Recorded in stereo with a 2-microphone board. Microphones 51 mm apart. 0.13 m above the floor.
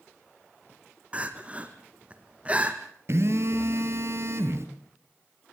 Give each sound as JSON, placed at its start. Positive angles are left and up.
{"t": 1.1, "sound": "crying", "side_deg": -25, "distance_m": 1.6}
{"t": 3.1, "sound": "a phone buzzing", "side_deg": -55, "distance_m": 1.6}